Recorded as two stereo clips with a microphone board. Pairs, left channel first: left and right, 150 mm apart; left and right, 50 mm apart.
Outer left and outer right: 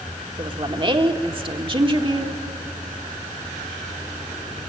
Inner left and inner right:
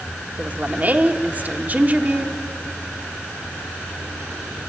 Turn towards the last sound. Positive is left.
turn(degrees=-35)  # may be behind; listen again after turning